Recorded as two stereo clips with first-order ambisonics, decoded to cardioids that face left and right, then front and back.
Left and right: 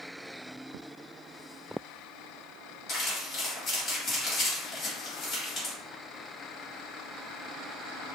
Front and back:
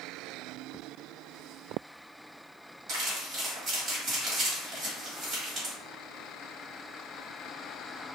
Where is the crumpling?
140° left, 1.7 m.